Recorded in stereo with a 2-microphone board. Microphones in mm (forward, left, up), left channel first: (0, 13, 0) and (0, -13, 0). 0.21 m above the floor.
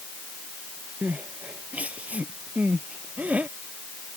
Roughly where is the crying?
Right.